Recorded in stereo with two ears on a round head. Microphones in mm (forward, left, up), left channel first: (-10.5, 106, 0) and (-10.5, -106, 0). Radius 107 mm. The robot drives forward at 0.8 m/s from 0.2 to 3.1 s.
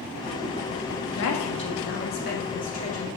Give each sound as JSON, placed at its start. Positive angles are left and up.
{"t": 1.1, "sound": "a woman speaking", "side_deg": 60, "distance_m": 1.5}